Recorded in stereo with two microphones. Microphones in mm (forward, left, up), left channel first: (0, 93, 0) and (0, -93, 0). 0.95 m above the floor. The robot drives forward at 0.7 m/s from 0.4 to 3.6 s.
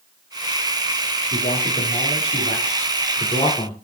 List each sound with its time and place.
1.3 s a man speaking: 65° left (ahead or behind), 1.3 m; by 3.7 s 30° left (ahead or behind), 2.5 m